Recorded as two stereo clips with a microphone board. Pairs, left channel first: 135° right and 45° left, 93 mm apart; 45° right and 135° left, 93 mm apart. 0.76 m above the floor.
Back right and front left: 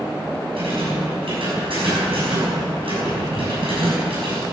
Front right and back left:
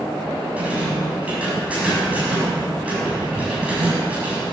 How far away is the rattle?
About 6.5 m.